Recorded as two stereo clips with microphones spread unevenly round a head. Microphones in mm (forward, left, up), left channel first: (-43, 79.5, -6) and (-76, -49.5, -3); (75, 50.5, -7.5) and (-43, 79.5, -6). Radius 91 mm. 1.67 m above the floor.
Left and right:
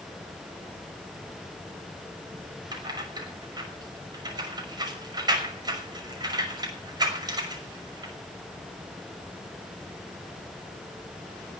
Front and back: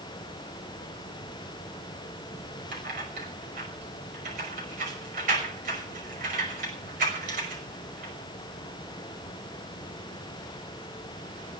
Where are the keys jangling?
160° right, 6 m.